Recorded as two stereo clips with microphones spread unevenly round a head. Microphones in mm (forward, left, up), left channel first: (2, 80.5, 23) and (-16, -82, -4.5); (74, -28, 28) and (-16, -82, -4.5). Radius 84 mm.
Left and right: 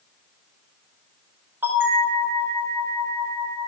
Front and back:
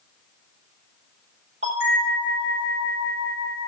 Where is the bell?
175° right, 6 m.